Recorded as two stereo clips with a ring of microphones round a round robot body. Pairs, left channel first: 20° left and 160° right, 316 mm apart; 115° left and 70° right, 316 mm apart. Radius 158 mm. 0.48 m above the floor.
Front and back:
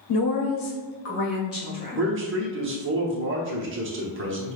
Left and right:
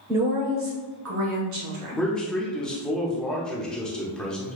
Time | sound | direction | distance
0.1 | a woman speaking | 15° left | 1.0 m
2.0 | a man speaking | 160° right | 0.9 m